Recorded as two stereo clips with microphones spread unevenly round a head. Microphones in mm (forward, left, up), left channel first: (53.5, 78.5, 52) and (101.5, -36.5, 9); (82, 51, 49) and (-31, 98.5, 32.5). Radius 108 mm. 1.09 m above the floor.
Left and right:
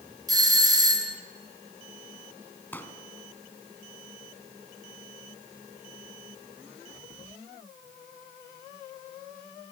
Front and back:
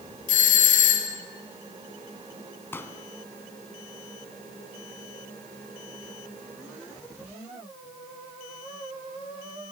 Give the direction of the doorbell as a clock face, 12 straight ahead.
12 o'clock.